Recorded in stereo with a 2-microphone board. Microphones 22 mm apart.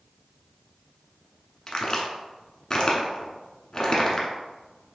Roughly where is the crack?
Left.